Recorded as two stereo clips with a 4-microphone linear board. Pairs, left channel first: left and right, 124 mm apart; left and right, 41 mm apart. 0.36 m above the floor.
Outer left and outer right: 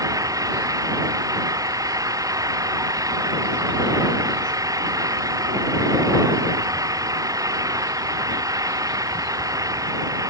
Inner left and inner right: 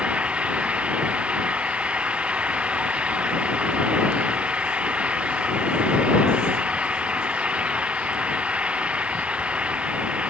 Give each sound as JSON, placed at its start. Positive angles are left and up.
{"t": 0.0, "sound": "an engine running", "side_deg": -30}